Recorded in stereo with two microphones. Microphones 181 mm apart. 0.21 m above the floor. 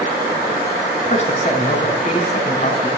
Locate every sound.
1.1 s a man speaking: 40° left (ahead or behind), 2 m